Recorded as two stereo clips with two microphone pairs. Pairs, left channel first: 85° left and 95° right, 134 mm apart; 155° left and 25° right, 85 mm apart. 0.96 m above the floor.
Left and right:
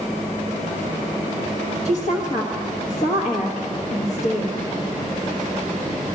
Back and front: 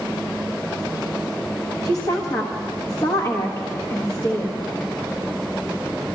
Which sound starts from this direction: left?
A woman speaking, at 1.9 s.